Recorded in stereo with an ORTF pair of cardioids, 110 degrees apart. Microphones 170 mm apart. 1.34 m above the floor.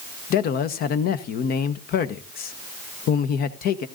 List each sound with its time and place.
0.3 s a man speaking: 65° left, 1.0 m